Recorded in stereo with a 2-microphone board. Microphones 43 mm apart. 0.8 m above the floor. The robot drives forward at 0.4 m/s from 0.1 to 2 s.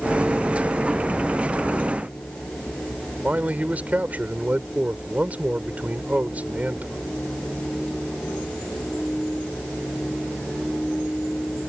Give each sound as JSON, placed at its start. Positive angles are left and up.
{"t": 3.2, "sound": "a man speaking", "side_deg": -40}